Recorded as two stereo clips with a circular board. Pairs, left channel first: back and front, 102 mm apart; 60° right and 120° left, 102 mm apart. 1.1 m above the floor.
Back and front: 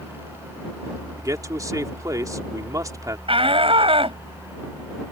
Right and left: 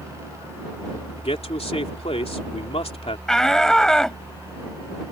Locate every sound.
1.2 s a man speaking: 55° right
3.3 s a shout: 25° left